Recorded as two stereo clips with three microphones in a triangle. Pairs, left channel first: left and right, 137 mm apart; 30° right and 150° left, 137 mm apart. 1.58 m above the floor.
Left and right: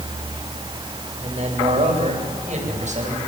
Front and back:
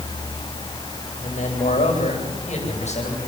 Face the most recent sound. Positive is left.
turn(degrees=-65)